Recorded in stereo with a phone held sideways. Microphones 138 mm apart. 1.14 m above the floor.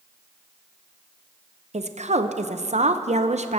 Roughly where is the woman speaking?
Right.